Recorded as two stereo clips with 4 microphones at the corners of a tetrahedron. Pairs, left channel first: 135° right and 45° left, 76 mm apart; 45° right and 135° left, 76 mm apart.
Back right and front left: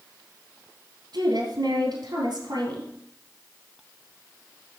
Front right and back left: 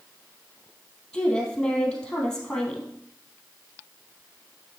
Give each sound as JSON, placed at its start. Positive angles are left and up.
{"t": 1.1, "sound": "a woman speaking", "azimuth_deg": 35, "distance_m": 3.0}